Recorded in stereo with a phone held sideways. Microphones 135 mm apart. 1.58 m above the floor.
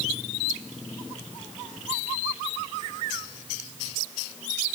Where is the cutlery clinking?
I don't hear cutlery clinking.